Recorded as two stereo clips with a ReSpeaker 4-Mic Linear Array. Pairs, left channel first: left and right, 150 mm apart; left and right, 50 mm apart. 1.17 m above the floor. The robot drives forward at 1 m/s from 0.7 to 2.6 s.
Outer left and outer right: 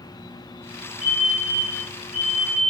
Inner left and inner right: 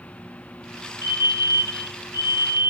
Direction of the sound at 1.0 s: 70° right (ahead or behind).